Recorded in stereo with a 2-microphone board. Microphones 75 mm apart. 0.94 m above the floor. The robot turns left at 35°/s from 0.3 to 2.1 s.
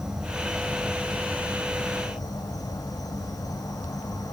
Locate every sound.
0.0 s an insect: 170° right, 4 m; by 4.3 s 125° left, 4 m